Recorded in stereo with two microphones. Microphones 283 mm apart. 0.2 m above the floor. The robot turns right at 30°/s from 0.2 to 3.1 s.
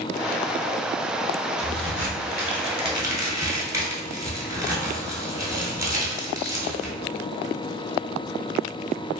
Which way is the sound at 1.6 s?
55° right (ahead or behind).